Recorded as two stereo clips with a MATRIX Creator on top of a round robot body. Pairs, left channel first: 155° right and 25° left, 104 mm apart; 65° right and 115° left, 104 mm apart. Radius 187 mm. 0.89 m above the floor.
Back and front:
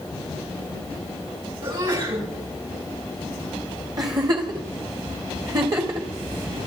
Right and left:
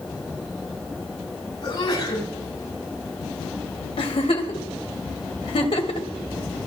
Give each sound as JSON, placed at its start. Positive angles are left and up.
{"t": 1.6, "sound": "a sneeze", "azimuth_deg": -15, "distance_m": 9.5}
{"t": 4.0, "sound": "a giggle", "azimuth_deg": -30, "distance_m": 1.9}